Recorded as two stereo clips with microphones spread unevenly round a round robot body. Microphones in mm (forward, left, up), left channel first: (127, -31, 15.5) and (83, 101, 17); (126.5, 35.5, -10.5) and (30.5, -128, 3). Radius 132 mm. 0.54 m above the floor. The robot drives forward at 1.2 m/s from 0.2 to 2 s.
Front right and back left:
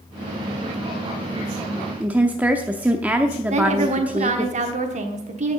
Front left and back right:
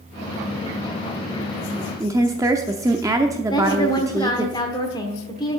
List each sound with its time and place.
2.0 s a woman speaking: straight behind, 0.6 m
3.5 s a woman speaking: 125° left, 1.2 m